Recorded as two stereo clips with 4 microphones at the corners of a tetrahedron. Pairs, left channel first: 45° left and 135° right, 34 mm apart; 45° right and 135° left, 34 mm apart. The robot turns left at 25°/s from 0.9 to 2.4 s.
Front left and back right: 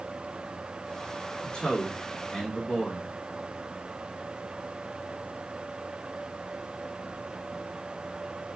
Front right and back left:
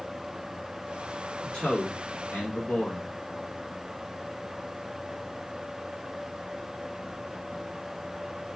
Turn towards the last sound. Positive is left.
turn(degrees=-10)